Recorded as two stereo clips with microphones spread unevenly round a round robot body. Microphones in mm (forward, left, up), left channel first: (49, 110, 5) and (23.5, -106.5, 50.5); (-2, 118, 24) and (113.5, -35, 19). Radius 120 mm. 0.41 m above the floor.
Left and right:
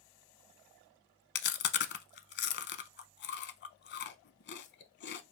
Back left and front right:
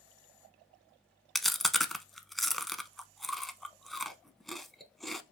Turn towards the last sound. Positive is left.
turn(degrees=40)